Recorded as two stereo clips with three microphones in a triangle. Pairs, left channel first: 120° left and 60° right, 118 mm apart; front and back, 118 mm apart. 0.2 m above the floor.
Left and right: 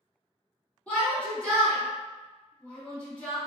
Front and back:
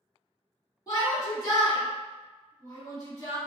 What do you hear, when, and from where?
0.9 s a shout: 45° left, 1.7 m